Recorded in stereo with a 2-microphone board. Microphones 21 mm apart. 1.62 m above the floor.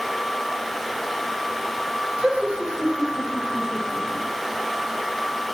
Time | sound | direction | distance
2.2 | laughter | 60° right (ahead or behind) | 1.1 m